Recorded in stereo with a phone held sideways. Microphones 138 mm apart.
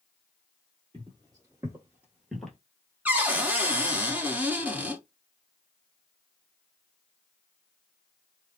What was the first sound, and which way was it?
Footsteps, 35° right (ahead or behind).